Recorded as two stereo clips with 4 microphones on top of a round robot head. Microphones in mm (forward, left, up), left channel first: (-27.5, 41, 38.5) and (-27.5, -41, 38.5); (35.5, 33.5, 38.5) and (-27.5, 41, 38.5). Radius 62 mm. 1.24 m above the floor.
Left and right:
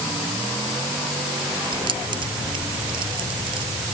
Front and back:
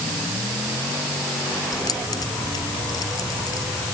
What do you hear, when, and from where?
1.7 s keys jangling: 50° right